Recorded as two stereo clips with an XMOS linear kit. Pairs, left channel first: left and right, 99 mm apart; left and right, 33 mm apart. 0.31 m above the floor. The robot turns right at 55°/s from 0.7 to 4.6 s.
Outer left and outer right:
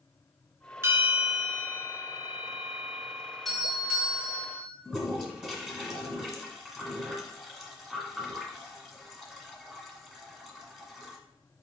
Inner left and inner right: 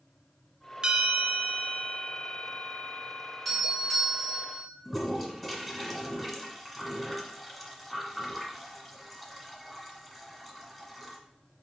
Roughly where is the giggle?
I don't hear a giggle.